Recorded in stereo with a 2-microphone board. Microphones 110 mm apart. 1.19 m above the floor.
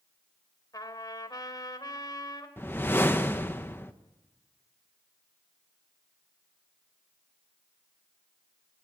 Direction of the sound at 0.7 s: 35° left (ahead or behind).